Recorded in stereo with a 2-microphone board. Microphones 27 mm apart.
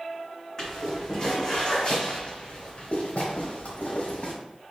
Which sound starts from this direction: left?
Footsteps, at 0.6 s.